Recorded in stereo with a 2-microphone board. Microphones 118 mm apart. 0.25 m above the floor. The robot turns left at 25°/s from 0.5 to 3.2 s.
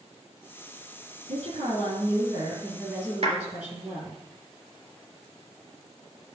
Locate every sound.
1.3 s a woman speaking: 115° right, 5.5 m; by 4.2 s 160° right, 5.5 m
3.2 s a clap: 60° right (ahead or behind), 3.5 m